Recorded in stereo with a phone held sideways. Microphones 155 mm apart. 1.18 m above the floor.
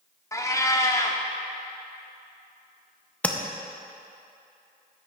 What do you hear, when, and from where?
0.3 s a cat meowing: 20° left (ahead or behind), 0.7 m
3.2 s tapping: 10° left (ahead or behind), 0.6 m